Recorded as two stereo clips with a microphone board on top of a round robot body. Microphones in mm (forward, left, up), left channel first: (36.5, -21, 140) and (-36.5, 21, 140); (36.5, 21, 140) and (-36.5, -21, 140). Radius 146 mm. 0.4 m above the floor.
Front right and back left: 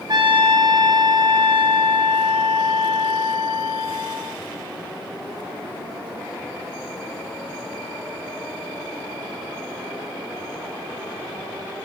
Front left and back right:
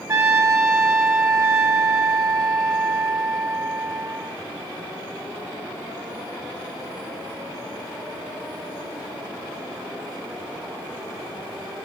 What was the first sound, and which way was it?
A trumpet, 160° left.